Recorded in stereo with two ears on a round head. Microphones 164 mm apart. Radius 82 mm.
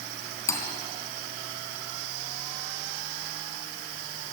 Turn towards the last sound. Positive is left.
turn(degrees=15)  # may be behind; listen again after turning